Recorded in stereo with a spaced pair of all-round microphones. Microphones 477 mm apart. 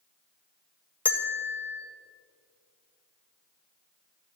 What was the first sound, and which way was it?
A bell, 5° left (ahead or behind).